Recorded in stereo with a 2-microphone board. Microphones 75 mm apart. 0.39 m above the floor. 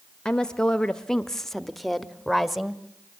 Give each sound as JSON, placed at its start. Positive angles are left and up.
{"t": 0.2, "sound": "a woman speaking", "side_deg": 10, "distance_m": 1.0}